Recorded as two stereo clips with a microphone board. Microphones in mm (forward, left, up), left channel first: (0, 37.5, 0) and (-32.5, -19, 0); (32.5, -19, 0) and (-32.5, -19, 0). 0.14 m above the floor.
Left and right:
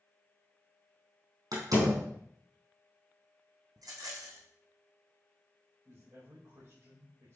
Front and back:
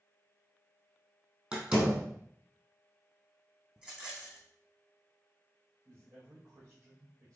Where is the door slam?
110° right, 3.5 m.